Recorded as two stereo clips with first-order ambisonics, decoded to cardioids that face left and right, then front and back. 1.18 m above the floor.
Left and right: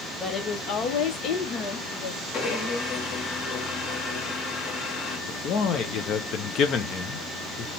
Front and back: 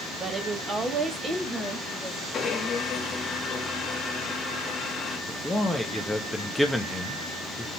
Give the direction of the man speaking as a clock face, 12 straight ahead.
9 o'clock.